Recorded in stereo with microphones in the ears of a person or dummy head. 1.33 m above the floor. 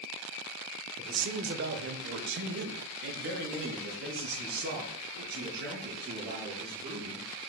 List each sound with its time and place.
1.0 s a man speaking: 35° right (ahead or behind), 0.6 m; by 7.3 s 55° right (ahead or behind), 4 m